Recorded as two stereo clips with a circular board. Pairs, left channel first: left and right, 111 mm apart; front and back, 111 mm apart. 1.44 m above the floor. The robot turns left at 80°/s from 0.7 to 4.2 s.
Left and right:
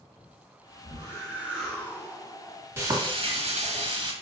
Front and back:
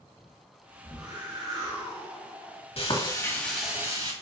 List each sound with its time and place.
0.8 s a whoosh: 120° right, 2 m; by 2.7 s 95° left, 2 m
2.8 s frying: 20° right, 1.4 m; by 4.1 s 130° right, 1.4 m